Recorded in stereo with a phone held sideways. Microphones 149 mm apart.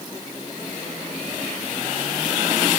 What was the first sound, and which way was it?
Only background noise.